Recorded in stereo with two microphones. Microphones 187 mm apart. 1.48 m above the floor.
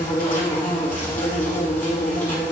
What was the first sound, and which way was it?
An insect, 50° left (ahead or behind).